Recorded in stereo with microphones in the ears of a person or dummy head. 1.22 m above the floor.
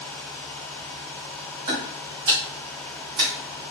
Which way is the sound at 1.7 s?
25° right (ahead or behind).